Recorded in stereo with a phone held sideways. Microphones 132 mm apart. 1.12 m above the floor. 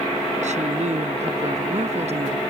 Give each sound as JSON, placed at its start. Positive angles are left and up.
{"t": 0.4, "sound": "a woman speaking", "side_deg": -70}